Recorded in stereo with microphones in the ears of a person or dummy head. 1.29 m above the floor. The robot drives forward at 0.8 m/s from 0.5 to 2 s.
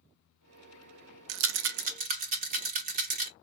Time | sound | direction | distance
1.3 | a rattle | 65° right (ahead or behind) | 0.6 m